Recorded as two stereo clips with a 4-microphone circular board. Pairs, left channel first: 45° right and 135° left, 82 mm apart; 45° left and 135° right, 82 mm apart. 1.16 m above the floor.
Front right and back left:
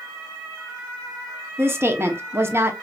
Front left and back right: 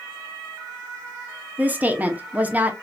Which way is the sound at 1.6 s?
165° left.